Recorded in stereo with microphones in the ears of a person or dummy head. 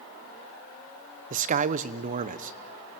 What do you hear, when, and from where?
1.3 s a man speaking: 40° right (ahead or behind), 1.0 m